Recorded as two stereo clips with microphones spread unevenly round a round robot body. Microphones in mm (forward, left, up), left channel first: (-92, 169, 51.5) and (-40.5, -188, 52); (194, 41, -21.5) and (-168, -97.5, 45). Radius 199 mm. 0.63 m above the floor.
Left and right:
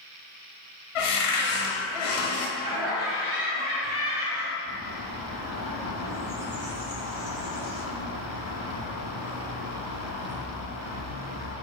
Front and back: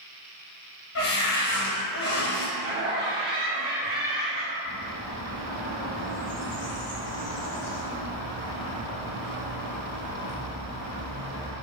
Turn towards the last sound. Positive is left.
turn(degrees=-10)